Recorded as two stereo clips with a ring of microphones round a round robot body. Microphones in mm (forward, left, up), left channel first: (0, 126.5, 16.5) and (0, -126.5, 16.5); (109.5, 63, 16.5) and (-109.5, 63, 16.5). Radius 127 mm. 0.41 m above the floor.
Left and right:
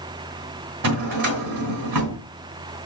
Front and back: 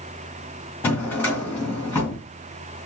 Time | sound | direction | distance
0.8 | a drawer | 85° right | 2.5 m